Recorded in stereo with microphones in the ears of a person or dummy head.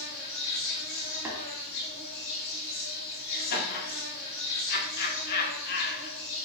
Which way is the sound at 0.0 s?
60° left (ahead or behind).